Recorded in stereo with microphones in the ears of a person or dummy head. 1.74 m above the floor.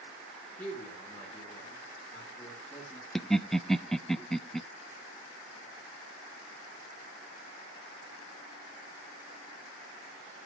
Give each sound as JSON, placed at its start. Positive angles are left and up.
{"t": 0.6, "sound": "a man speaking", "side_deg": 10, "distance_m": 5.5}
{"t": 3.1, "sound": "laughter", "side_deg": 0, "distance_m": 0.7}